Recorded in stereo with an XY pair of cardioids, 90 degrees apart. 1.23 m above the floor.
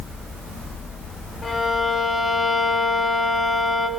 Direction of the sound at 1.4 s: 35° left.